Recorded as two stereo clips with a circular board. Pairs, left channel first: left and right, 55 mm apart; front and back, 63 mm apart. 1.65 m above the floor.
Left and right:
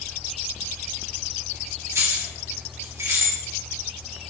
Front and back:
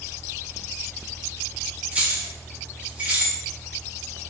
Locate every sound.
1.9 s keys jangling: 115° right, 2 m